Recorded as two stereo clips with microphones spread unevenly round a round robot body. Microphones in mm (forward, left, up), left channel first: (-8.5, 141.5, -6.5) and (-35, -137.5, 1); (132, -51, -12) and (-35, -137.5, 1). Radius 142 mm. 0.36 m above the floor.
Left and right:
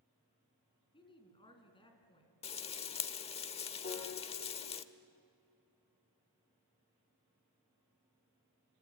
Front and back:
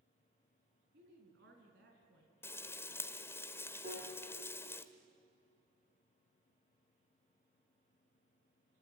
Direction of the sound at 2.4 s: 70° left.